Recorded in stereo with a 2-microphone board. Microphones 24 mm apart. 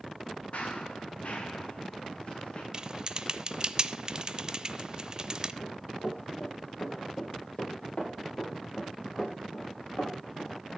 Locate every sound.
0.5 s running footsteps: 65° left (ahead or behind), 2.5 m; by 2.6 s 50° left (ahead or behind), 4 m
2.7 s typing on a keyboard: 35° right (ahead or behind), 0.6 m
5.6 s running footsteps: 60° left (ahead or behind), 6.5 m; by 10.5 s 35° left (ahead or behind), 8.5 m